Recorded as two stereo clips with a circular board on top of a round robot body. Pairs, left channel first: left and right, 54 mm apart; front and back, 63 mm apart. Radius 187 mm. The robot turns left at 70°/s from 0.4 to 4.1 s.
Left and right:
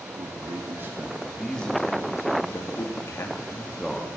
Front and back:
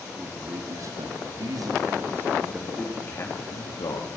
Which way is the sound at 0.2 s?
115° right.